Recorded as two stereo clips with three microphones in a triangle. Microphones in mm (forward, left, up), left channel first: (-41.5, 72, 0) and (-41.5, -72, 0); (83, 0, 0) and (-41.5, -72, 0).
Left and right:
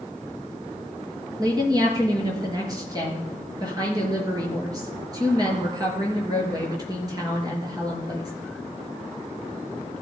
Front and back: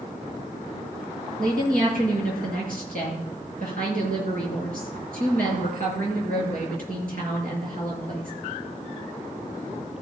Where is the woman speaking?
150° right, 5 m.